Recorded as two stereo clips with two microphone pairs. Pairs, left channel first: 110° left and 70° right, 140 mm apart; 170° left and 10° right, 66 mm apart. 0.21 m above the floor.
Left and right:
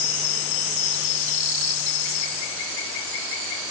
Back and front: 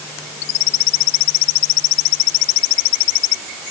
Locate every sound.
Only background noise.